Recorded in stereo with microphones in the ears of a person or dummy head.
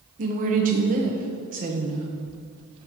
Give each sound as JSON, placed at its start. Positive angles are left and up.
{"t": 0.2, "sound": "a woman speaking", "side_deg": -40, "distance_m": 1.1}